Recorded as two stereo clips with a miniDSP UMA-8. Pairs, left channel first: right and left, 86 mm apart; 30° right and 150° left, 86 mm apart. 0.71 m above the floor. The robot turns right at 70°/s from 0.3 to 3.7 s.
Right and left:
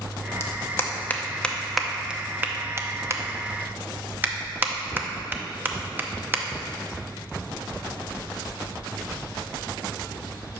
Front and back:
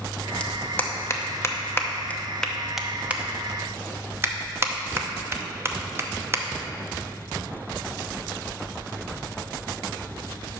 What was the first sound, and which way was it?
A clap, 95° right.